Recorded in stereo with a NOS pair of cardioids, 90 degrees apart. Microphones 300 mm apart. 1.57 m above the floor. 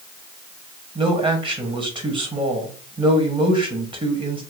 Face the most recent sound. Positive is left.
turn(degrees=-20)